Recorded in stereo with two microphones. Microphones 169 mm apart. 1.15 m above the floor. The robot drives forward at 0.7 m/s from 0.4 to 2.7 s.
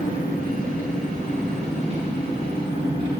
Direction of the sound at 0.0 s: 55° right (ahead or behind).